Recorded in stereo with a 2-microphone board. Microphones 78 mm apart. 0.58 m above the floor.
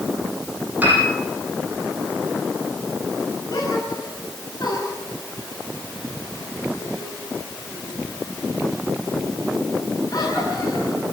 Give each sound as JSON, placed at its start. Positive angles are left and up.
{"t": 0.8, "sound": "a piano", "side_deg": -20, "distance_m": 9.5}
{"t": 3.5, "sound": "a gasp", "side_deg": 55, "distance_m": 9.0}